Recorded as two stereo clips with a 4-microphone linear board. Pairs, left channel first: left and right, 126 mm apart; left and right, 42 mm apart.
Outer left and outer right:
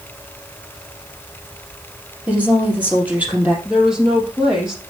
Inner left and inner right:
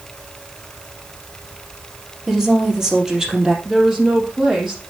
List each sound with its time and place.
2.3 s a woman speaking: 15° right (ahead or behind), 3 m
3.6 s a woman speaking: 5° right (ahead or behind), 3.5 m